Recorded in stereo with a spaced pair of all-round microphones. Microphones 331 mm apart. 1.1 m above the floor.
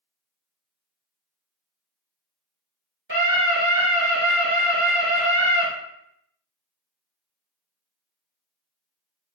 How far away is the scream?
About 2.5 m.